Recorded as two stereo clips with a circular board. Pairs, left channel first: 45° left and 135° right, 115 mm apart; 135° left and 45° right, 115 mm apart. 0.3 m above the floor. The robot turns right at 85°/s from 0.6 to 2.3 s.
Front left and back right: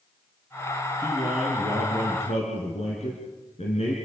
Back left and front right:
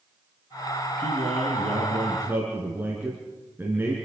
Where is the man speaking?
85° right, 4 m; by 4.0 s 25° left, 4 m.